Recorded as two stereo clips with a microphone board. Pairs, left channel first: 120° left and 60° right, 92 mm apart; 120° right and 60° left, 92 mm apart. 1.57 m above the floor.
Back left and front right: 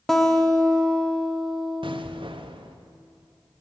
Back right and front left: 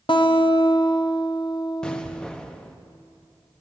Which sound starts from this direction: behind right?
A guitar, at 0.1 s.